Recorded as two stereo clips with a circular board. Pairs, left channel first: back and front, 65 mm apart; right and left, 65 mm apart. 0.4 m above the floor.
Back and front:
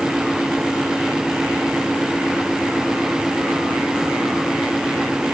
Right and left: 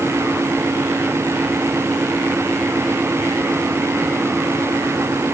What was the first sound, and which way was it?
Only background noise.